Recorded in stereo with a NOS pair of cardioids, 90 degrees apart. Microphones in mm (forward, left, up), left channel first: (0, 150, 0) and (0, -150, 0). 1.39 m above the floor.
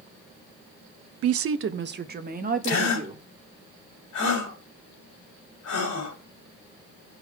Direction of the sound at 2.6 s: 70° left.